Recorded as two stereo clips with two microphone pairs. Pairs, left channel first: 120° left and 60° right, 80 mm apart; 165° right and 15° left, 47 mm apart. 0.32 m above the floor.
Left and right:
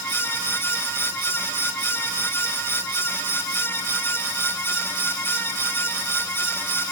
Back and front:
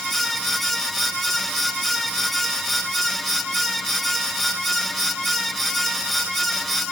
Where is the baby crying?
No baby crying in this recording.